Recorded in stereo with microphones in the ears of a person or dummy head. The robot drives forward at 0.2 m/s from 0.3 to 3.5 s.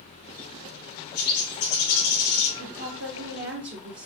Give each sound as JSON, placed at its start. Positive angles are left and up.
{"t": 1.1, "sound": "a bird", "side_deg": 60, "distance_m": 2.5}
{"t": 2.6, "sound": "a woman speaking", "side_deg": -60, "distance_m": 1.1}